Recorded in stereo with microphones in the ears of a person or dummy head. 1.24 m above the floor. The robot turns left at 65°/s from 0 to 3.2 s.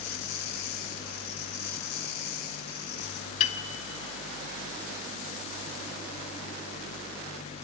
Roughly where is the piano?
Left.